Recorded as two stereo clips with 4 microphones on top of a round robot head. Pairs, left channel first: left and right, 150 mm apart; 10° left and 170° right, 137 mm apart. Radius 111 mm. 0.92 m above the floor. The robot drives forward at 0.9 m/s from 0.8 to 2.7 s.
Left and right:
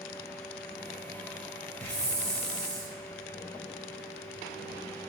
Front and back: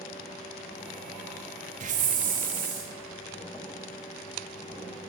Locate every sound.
1.8 s a hiss: 170° left, 1.1 m; by 2.9 s 175° left, 1.8 m